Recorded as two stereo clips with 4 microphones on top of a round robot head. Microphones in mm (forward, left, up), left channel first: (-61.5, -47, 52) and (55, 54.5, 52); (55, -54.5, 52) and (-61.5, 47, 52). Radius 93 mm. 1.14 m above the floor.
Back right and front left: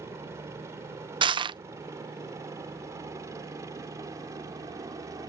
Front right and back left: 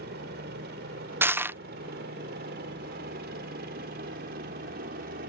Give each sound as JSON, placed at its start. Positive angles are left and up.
{"t": 0.0, "sound": "a helicopter", "azimuth_deg": 115}
{"t": 1.2, "sound": "crushing", "azimuth_deg": 70}